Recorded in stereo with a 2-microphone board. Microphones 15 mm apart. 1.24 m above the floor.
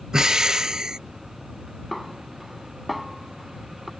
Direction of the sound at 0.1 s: 55° right (ahead or behind).